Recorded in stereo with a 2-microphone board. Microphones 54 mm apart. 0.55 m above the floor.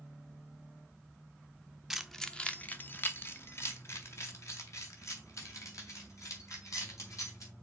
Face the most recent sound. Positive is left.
turn(degrees=65)  # may be behind; listen again after turning